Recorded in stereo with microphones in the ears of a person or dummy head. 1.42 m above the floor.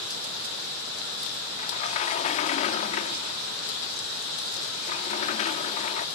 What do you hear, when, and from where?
1.6 s a sliding door: 35° left (ahead or behind)